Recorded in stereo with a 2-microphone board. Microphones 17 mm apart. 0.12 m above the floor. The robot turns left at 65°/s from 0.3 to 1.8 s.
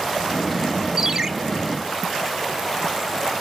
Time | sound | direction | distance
1.0 | a ringtone | 20° right (ahead or behind) | 0.6 m